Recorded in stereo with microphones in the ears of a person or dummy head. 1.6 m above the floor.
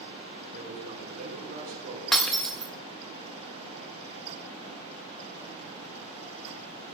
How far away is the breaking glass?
About 1.3 m.